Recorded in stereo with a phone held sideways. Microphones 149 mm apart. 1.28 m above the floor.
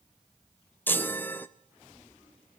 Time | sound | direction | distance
0.9 | a chime | 15° left (ahead or behind) | 0.7 m